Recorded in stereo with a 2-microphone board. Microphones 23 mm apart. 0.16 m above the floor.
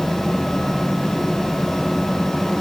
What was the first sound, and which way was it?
Only background noise.